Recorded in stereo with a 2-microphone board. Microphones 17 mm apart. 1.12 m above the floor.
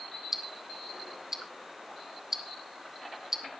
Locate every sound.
0.3 s ticking: 20° right (ahead or behind), 1.5 m